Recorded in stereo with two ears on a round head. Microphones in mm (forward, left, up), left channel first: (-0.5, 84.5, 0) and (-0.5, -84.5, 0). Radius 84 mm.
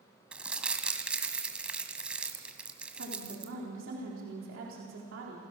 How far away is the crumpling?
About 1.5 m.